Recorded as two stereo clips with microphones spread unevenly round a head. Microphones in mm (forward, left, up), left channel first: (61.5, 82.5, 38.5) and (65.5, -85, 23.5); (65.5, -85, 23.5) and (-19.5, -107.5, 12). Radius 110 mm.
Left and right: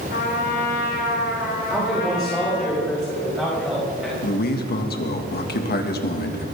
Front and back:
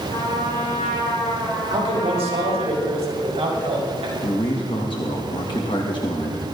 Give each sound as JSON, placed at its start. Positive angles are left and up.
{"t": 0.1, "sound": "a trumpet", "azimuth_deg": 65, "distance_m": 4.0}
{"t": 1.7, "sound": "a man speaking", "azimuth_deg": -175, "distance_m": 5.0}
{"t": 4.2, "sound": "a man speaking", "azimuth_deg": 70, "distance_m": 2.0}